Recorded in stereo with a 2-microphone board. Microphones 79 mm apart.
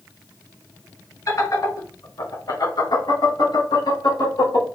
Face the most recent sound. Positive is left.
turn(degrees=65)  # may be behind; listen again after turning